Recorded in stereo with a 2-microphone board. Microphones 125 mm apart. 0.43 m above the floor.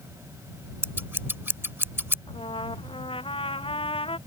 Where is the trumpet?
45° left (ahead or behind).